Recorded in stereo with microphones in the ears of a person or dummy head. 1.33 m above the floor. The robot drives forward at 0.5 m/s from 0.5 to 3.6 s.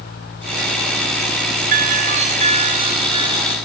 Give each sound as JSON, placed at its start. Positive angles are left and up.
{"t": 1.7, "sound": "a doorbell", "side_deg": -40, "distance_m": 1.0}